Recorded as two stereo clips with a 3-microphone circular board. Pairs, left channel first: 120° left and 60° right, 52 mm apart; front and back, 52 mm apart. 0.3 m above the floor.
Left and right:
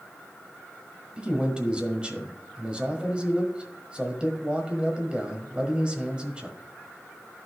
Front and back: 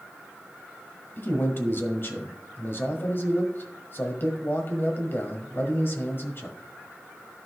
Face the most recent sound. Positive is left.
turn(degrees=0)